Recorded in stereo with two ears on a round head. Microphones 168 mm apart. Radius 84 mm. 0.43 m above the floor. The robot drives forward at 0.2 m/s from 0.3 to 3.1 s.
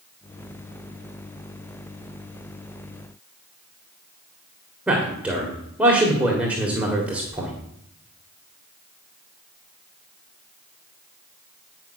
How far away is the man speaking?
About 1.7 m.